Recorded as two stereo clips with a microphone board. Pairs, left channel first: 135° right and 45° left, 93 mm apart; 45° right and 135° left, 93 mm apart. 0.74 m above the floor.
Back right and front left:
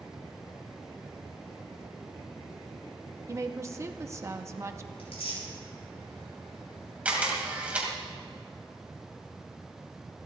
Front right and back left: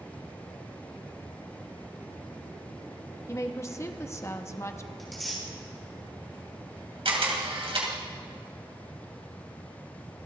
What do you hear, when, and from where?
3.3 s a woman speaking: straight ahead, 0.8 m
5.0 s tearing paper: 135° right, 5.5 m
7.0 s a camera shutter: 120° left, 2.5 m